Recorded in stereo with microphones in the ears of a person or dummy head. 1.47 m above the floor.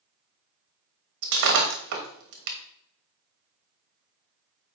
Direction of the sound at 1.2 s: 55° right (ahead or behind).